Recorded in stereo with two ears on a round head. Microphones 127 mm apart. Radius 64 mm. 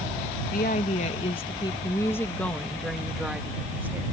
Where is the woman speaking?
60° left (ahead or behind); by 4.0 s 15° right (ahead or behind).